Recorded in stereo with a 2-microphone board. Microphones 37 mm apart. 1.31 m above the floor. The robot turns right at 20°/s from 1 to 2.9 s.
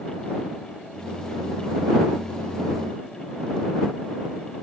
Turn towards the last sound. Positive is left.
No sound to turn to.